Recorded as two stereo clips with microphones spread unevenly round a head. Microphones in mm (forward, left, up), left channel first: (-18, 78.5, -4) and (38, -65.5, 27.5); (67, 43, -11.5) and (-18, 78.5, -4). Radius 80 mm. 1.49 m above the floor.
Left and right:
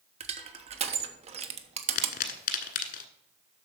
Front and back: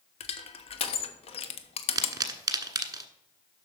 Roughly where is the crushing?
Ahead.